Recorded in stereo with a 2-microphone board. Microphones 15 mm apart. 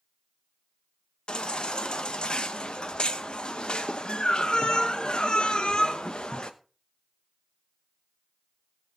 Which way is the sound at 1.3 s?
75° left (ahead or behind).